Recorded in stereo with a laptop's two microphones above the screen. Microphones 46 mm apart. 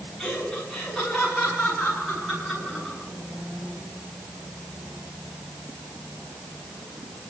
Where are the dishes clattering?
No dishes clattering in this recording.